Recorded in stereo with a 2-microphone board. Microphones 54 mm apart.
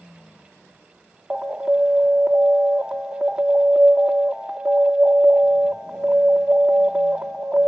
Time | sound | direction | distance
1.3 | an alarm | 10° right (ahead or behind) | 0.8 m